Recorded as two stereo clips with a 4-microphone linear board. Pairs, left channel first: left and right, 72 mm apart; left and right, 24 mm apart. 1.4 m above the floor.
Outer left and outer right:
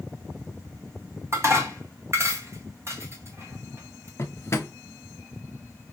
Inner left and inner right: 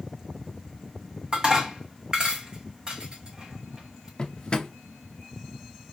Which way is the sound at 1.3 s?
40° right (ahead or behind).